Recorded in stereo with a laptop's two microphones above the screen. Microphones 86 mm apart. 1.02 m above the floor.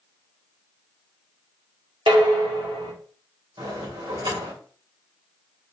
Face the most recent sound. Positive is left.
turn(degrees=-85)